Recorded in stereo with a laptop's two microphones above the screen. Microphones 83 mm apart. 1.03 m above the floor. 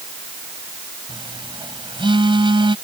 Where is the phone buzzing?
80° right.